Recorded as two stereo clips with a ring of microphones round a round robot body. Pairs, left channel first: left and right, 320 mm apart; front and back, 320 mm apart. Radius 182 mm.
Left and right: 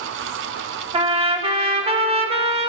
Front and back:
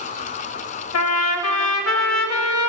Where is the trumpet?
20° right, 1.6 m.